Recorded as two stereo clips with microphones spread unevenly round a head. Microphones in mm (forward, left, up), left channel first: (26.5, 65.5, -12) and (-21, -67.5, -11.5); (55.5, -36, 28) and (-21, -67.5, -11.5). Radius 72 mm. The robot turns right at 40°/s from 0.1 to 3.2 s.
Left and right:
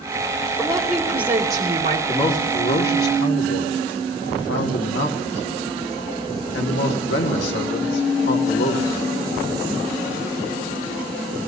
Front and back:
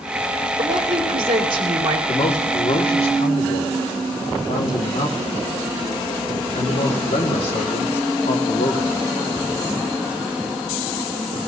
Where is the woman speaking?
145° left, 3 m; by 2.0 s 160° right, 3 m.